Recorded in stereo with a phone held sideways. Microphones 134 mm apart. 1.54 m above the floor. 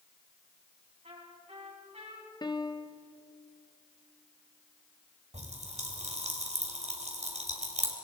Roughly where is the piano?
Left.